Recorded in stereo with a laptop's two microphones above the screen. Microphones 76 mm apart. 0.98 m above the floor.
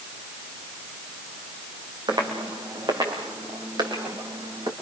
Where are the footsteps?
75° right (ahead or behind), 4 m; by 4.7 s 70° right (ahead or behind), 4.5 m.